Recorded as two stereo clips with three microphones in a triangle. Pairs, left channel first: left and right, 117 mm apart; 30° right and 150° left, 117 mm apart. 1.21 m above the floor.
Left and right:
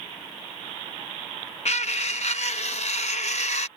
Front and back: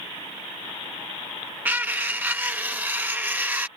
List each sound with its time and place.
1.6 s cutlery clinking: 75° left